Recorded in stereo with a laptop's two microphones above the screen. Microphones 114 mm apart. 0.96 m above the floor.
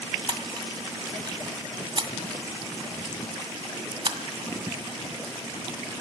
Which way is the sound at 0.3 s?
45° right (ahead or behind).